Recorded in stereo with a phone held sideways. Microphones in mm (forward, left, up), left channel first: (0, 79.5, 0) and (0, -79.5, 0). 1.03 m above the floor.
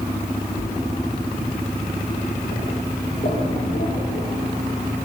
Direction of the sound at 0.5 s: 55° left (ahead or behind).